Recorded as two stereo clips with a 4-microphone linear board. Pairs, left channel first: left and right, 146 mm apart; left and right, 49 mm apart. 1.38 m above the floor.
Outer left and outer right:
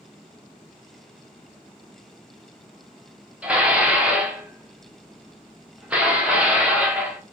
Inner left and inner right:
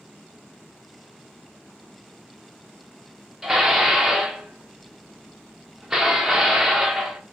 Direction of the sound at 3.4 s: 10° right (ahead or behind).